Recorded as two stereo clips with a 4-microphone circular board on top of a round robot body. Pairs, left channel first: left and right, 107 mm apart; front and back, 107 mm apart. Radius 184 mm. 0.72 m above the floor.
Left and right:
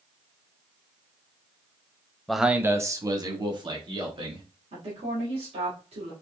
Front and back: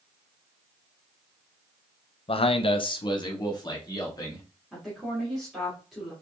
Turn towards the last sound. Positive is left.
turn(degrees=-90)